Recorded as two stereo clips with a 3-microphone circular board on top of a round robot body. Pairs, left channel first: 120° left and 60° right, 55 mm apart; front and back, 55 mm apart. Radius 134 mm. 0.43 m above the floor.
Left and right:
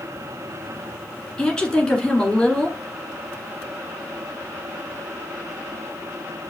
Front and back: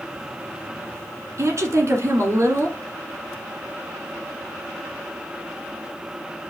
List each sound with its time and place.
1.4 s a woman speaking: 165° right, 1.9 m